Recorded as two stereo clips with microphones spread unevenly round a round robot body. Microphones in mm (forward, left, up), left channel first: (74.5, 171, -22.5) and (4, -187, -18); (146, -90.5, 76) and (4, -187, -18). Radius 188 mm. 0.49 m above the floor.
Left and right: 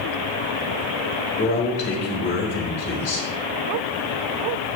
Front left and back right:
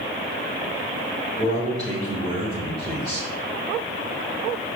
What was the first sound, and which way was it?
A man speaking, 140° left.